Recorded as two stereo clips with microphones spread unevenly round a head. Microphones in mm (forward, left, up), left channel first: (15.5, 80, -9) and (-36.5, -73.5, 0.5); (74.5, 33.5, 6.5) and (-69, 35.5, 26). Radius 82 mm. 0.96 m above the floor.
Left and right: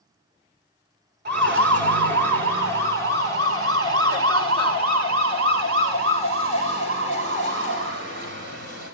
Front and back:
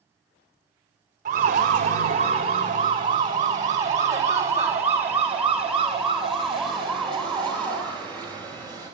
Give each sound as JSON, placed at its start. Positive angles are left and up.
{"t": 1.2, "sound": "a siren", "azimuth_deg": -130, "distance_m": 4.5}